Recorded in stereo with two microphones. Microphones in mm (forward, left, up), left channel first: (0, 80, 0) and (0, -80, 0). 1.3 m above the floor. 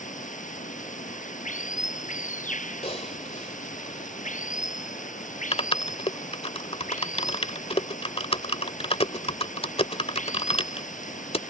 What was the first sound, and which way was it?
Running water, 50° left (ahead or behind).